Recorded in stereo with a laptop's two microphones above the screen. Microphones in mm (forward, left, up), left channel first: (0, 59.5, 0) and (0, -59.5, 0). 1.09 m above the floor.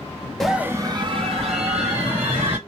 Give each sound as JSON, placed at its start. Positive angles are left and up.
{"t": 0.4, "sound": "a scream", "side_deg": 5, "distance_m": 0.6}